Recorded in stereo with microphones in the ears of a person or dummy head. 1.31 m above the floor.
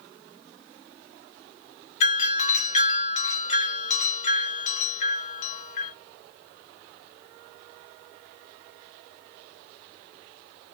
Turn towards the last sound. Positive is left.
turn(degrees=50)  # may be behind; listen again after turning